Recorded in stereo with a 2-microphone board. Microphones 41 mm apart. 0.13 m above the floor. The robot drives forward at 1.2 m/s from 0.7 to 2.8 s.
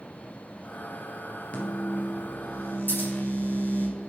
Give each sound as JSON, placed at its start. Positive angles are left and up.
{"t": 1.5, "sound": "a microwave", "side_deg": 35, "distance_m": 2.5}
{"t": 2.9, "sound": "scissors", "side_deg": 55, "distance_m": 3.0}